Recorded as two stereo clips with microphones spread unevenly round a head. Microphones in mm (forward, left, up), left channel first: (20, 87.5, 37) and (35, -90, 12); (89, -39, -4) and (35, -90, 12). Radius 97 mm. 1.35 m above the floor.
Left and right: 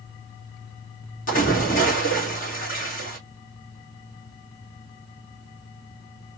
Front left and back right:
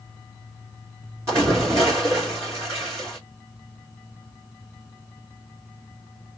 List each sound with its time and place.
1.3 s a splash: 145° left, 2.5 m